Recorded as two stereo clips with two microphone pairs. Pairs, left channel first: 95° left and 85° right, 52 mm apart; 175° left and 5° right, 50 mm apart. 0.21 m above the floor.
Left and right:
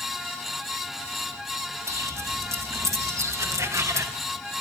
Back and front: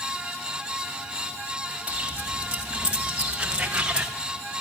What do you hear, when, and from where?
1.9 s footsteps: 70° right, 6.5 m; by 4.1 s 75° right, 4 m